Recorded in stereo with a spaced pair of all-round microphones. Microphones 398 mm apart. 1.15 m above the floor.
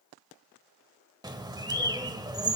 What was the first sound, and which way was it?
A bird, 10° right (ahead or behind).